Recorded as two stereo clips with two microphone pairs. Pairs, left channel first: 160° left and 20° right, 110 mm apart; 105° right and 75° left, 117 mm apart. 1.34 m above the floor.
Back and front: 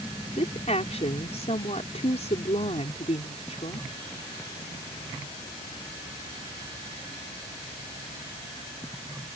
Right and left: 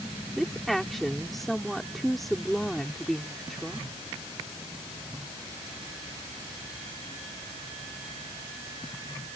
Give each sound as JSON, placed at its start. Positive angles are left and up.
{"t": 0.4, "sound": "a woman speaking", "azimuth_deg": 165}